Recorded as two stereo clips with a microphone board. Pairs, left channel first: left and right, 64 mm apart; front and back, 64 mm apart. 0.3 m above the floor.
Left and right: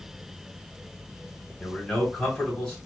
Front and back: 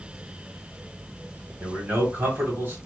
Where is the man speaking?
170° left, 1.5 m.